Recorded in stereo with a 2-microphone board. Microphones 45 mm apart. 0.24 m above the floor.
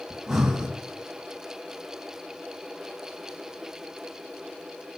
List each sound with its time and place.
0.1 s breathing: 5° right (ahead or behind), 1.9 m